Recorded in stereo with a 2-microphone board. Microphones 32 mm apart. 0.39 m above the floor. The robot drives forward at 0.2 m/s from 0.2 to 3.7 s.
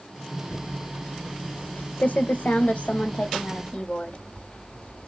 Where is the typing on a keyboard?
75° left (ahead or behind), 0.5 m; by 5.1 s 45° left (ahead or behind), 0.7 m.